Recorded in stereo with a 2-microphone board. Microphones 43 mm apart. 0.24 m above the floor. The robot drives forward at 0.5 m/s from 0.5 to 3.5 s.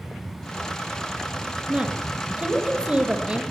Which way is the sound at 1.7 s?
30° right (ahead or behind).